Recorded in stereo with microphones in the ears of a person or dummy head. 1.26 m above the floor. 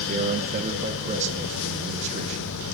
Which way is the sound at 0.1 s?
40° right (ahead or behind).